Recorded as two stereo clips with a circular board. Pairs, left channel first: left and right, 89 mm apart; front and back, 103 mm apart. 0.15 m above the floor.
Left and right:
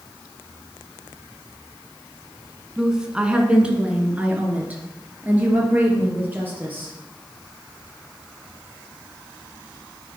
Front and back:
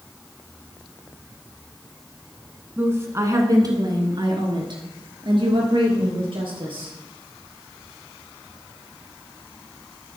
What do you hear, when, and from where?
2.8 s a woman speaking: 165° right, 1.3 m; by 6.9 s 155° right, 3.5 m